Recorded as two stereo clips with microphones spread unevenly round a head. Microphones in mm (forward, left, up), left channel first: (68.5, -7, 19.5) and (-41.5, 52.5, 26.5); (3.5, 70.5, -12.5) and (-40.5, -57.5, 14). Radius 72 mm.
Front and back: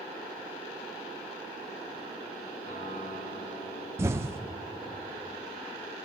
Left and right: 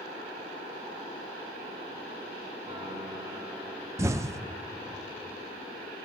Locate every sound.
2.7 s a piano: 55° right, 4 m
4.0 s an explosion: 150° right, 0.5 m